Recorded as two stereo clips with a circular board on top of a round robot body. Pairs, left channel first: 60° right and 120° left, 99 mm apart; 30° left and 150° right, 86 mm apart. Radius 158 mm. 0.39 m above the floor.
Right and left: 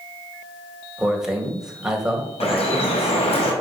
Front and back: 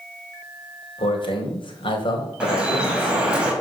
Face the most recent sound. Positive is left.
turn(degrees=-70)